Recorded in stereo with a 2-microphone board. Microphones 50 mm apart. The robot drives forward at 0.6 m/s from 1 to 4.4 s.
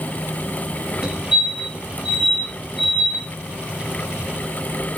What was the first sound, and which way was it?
A fire alarm, 15° right (ahead or behind).